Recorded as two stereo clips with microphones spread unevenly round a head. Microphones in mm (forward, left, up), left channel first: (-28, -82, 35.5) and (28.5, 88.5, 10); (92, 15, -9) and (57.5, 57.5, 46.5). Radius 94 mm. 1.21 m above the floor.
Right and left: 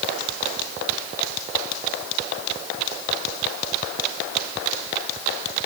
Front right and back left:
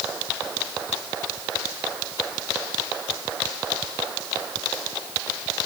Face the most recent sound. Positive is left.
No sound to turn to.